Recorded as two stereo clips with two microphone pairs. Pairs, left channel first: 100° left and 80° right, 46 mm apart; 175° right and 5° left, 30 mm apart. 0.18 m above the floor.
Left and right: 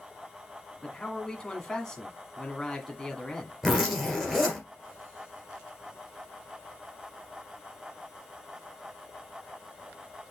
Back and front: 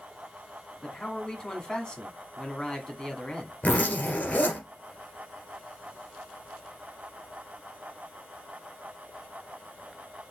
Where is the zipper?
165° right, 2.5 m.